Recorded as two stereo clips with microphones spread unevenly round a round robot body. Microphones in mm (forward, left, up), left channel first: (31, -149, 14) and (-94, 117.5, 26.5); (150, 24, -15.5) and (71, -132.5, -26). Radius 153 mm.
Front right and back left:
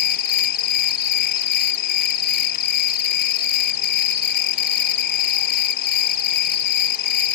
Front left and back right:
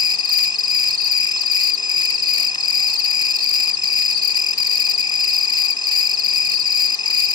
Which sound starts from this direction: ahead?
An insect, at 0.0 s.